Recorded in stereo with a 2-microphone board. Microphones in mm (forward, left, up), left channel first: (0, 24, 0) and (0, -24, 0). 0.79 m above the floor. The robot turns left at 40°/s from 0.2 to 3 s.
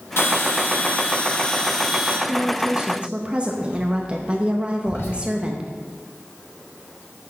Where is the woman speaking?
25° right (ahead or behind), 0.6 m.